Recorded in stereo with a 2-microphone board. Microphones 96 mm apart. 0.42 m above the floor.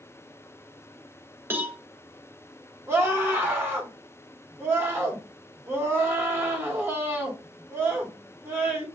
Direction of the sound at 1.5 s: 20° right (ahead or behind).